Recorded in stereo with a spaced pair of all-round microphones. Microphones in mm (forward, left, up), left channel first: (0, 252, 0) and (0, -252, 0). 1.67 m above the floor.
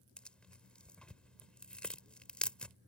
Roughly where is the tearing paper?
Centre.